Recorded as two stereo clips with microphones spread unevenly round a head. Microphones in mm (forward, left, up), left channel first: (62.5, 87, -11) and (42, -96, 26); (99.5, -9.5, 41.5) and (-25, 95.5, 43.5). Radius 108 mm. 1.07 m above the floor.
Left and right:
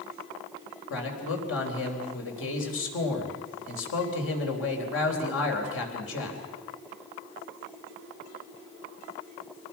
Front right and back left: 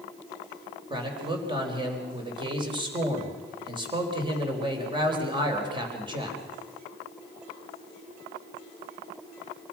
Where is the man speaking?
80° left, 4 m.